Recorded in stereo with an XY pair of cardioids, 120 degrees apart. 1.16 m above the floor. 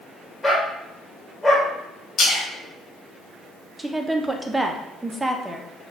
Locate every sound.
0.4 s a dog barking: 20° left, 1.9 m
2.2 s a splash: 50° left, 1.9 m
3.8 s a woman speaking: 10° right, 0.7 m